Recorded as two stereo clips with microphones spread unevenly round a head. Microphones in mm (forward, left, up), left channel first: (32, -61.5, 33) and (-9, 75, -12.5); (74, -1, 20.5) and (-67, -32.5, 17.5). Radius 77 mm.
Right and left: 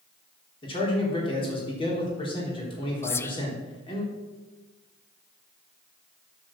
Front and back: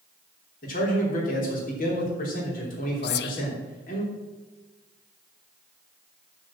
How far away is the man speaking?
About 3.5 m.